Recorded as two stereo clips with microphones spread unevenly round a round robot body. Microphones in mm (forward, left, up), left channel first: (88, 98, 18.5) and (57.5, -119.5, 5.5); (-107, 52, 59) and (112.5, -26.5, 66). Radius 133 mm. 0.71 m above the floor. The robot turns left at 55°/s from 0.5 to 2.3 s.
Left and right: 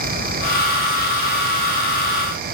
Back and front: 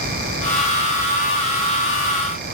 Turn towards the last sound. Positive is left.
No sound to turn to.